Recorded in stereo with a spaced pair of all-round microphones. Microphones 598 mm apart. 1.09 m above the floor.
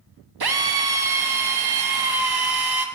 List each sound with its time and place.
0.4 s a drill: 40° right (ahead or behind), 0.7 m